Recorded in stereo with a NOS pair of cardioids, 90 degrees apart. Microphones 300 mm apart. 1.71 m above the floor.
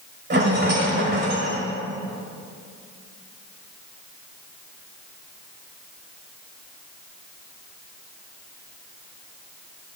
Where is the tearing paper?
I don't hear tearing paper.